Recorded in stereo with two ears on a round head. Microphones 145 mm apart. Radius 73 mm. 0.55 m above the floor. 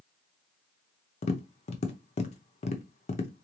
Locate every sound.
1.2 s tapping: 40° left (ahead or behind), 0.6 m